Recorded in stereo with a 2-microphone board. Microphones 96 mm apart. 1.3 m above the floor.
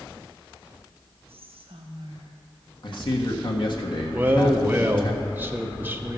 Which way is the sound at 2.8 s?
55° left (ahead or behind).